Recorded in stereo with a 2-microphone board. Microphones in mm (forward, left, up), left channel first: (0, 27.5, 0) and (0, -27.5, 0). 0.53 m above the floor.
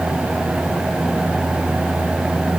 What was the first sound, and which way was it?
Only background noise.